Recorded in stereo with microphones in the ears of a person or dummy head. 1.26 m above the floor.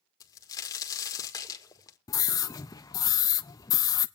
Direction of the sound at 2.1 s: 20° left (ahead or behind).